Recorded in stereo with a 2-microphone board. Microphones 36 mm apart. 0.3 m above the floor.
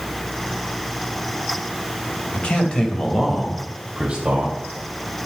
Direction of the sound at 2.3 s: 40° left (ahead or behind).